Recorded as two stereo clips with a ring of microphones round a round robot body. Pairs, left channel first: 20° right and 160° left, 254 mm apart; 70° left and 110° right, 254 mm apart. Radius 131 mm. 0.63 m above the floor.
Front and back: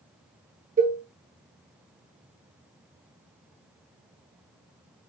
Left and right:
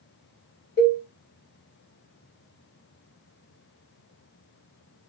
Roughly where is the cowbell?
Left.